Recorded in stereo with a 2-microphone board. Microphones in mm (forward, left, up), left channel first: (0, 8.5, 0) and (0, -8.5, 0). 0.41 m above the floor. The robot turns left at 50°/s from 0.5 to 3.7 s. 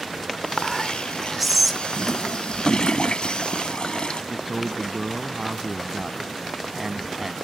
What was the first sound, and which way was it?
Whispering, 20° left (ahead or behind).